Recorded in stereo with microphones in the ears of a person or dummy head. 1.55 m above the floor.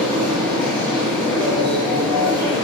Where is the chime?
I don't hear a chime.